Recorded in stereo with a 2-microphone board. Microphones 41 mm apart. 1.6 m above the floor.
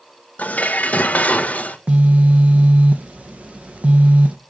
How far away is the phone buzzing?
About 0.7 m.